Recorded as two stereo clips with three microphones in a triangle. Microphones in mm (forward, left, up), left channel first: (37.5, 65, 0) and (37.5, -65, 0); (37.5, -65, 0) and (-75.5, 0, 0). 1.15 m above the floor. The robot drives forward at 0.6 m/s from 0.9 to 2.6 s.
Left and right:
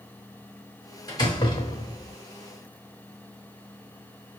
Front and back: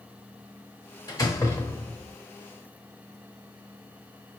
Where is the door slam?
30° left, 1.3 m; by 2.1 s 55° left, 0.8 m.